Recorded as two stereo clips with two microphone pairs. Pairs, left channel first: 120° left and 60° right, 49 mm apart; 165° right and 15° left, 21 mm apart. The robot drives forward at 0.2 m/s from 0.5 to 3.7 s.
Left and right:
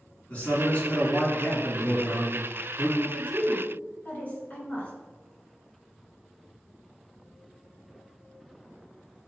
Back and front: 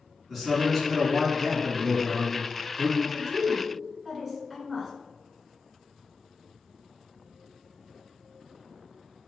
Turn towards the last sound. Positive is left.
turn(degrees=105)